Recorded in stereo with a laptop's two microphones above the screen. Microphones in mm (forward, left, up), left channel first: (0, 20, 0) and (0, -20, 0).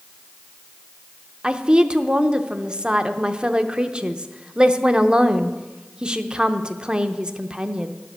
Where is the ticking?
No ticking in this recording.